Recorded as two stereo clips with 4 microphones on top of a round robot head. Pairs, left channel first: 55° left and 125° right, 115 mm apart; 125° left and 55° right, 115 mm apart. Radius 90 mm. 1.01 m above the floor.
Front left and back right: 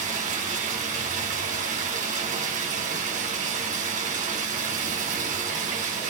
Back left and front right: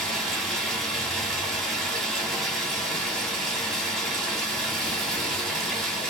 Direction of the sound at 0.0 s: 150° right.